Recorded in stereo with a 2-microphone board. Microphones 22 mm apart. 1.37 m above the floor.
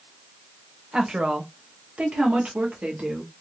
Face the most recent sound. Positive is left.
turn(degrees=-70)  # may be behind; listen again after turning